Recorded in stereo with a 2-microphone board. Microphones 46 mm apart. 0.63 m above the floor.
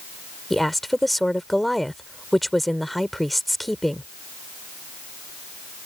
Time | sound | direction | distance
0.5 | a woman speaking | 5° left (ahead or behind) | ?